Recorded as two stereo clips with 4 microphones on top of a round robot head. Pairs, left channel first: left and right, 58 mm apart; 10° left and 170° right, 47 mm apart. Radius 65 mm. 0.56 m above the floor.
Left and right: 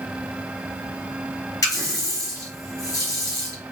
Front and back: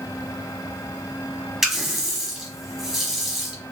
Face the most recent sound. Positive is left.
turn(degrees=110)